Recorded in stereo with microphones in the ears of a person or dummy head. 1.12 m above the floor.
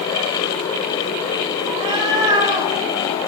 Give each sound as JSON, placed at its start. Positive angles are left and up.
{"t": 1.7, "sound": "a cat meowing", "side_deg": -20, "distance_m": 0.6}